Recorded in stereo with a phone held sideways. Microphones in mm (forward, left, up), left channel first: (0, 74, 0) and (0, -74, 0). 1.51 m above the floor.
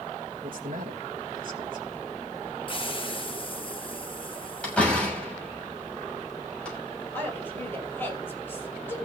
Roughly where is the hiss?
Left.